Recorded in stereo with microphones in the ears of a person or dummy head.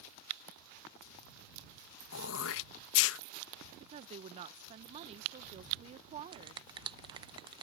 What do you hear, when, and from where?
2.1 s throat clearing: 70° left (ahead or behind)
3.8 s a woman speaking: 30° right (ahead or behind)
6.3 s a finger snap: 25° right (ahead or behind)